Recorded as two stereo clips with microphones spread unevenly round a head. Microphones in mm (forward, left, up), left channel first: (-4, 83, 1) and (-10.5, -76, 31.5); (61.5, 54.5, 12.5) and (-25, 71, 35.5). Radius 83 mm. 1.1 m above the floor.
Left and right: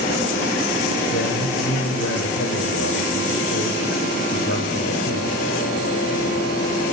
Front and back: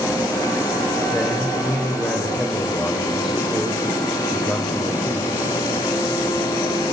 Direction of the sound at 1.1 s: 75° left.